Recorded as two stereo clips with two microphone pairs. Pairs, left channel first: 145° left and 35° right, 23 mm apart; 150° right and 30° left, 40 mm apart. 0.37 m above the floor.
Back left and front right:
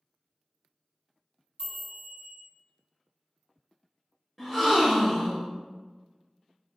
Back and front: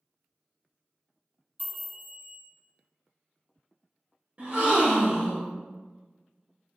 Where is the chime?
5° left, 1.8 m.